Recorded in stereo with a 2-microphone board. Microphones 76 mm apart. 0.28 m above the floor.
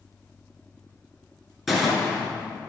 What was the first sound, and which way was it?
A gunshot, centre (ahead or behind).